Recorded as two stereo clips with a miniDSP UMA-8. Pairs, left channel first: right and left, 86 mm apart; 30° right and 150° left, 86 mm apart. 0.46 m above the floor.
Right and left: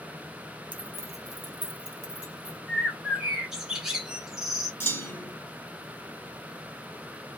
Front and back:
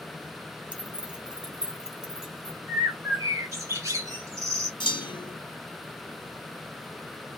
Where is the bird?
170° left, 1.2 m.